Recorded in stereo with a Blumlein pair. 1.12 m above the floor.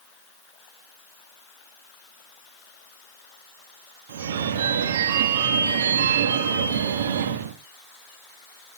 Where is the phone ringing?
60° right, 1.4 m.